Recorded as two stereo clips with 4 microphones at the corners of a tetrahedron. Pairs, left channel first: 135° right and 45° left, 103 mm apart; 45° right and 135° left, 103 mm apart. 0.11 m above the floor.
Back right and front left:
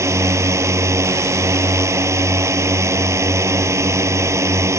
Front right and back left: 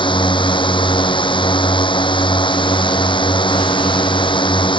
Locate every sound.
0.0 s a drone: 15° right